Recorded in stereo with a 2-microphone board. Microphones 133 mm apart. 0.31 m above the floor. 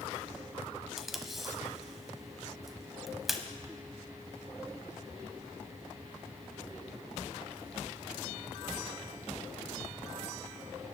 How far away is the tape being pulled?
About 1.1 m.